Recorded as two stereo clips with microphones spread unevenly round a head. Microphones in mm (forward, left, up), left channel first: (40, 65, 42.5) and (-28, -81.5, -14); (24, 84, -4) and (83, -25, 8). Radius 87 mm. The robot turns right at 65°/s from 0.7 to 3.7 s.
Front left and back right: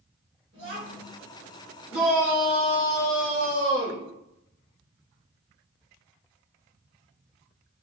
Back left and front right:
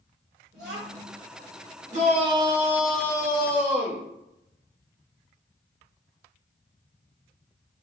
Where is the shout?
35° right, 1.2 m; by 4.1 s 80° left, 1.2 m.